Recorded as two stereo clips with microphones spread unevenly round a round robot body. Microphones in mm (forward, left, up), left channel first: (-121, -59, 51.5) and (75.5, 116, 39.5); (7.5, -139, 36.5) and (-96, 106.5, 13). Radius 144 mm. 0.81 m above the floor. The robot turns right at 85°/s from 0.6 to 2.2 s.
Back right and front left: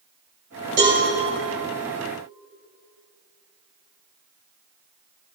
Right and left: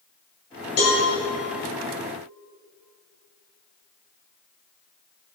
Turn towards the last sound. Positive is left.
turn(degrees=100)